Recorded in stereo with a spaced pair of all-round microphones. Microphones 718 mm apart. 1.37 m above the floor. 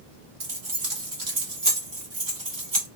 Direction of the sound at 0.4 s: 30° right (ahead or behind).